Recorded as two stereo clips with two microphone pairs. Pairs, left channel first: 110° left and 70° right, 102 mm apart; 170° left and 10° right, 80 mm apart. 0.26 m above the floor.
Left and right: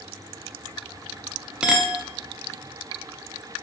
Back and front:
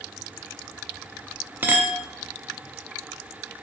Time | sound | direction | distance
1.6 | a clink | straight ahead | 0.6 m